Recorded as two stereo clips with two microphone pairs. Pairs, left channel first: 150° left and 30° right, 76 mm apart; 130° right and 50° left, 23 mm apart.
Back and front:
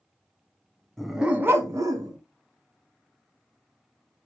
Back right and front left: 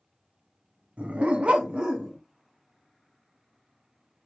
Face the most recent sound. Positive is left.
turn(degrees=0)